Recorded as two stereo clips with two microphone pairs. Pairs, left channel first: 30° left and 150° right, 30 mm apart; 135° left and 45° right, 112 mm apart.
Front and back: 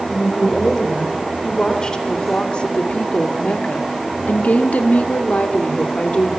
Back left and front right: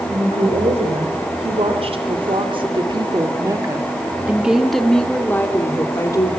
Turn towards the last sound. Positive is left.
turn(degrees=80)